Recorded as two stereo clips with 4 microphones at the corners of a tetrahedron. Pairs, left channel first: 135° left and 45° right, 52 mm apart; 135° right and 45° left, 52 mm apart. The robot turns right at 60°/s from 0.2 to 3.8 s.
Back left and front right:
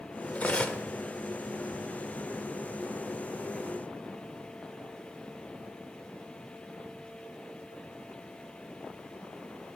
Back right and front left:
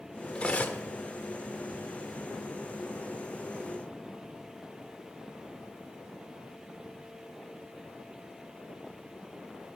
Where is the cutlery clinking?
170° left, 0.5 m; by 0.8 s 165° right, 0.5 m.